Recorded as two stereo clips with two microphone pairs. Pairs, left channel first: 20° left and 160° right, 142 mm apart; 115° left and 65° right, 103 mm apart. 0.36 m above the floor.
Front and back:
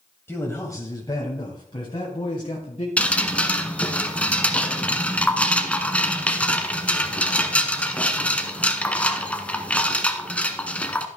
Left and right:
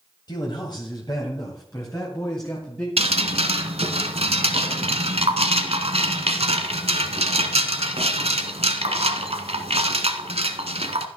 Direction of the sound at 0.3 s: 90° left.